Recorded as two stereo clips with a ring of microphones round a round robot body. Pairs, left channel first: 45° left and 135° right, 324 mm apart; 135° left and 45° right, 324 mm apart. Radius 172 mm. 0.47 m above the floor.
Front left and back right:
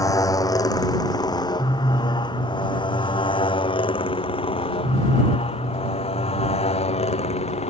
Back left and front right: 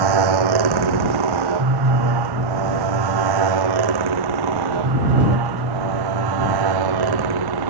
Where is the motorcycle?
35° right; by 7.7 s 25° right.